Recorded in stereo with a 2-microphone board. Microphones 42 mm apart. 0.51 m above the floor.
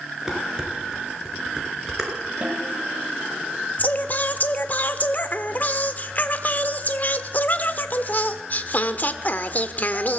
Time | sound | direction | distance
0.3 | dishes clattering | 15° right (ahead or behind) | 5 m
2.4 | a snare drum | 30° right (ahead or behind) | 1.9 m
3.8 | singing | 45° left (ahead or behind) | 1.1 m